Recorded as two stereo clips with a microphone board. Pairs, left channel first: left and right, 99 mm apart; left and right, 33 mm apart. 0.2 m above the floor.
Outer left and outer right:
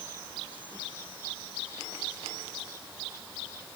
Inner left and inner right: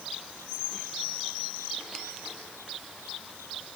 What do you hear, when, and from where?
Only background noise.